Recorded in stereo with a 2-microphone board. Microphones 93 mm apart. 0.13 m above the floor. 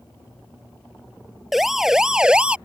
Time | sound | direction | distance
1.5 | a siren | 5° right (ahead or behind) | ?